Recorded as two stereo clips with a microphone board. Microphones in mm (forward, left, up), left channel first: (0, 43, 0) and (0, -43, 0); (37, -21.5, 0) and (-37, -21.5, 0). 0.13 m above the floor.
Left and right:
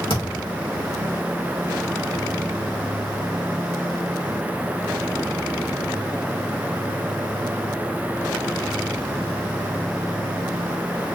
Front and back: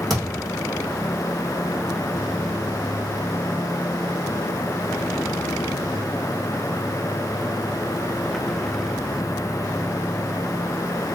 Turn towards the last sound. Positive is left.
turn(degrees=85)